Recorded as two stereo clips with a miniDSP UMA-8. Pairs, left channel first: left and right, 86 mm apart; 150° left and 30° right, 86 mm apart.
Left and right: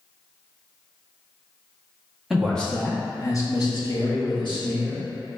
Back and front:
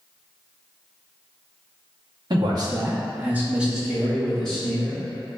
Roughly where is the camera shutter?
I don't hear a camera shutter.